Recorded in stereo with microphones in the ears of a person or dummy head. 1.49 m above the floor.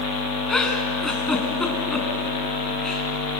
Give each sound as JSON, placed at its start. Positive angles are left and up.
{"t": 0.5, "sound": "a giggle", "side_deg": 5, "distance_m": 3.5}